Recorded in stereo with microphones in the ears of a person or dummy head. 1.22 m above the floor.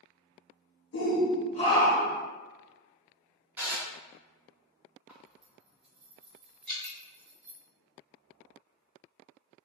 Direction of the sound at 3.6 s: 15° right (ahead or behind).